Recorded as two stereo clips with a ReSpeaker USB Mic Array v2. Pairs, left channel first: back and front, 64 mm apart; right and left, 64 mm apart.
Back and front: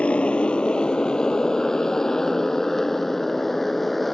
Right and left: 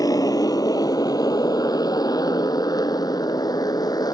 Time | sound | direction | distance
0.0 | a motorcycle | 105° right | ?